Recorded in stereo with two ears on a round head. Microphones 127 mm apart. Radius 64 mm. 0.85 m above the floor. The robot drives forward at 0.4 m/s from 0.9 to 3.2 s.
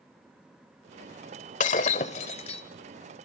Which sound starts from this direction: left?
Breaking glass, at 1.6 s.